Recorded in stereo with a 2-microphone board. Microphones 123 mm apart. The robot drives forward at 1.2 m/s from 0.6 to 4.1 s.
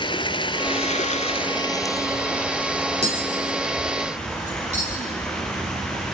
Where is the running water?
45° left (ahead or behind), 0.8 m; by 6.2 s 10° left (ahead or behind), 3.5 m.